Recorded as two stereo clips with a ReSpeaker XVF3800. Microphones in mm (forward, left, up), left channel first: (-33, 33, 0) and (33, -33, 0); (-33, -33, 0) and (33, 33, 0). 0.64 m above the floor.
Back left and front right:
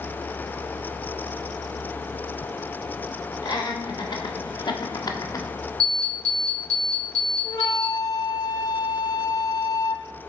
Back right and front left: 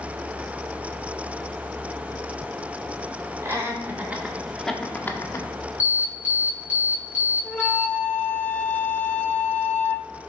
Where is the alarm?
20° right, 2.5 m.